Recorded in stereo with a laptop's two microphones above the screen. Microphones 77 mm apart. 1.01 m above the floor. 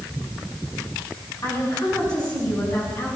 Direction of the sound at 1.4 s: 55° left (ahead or behind).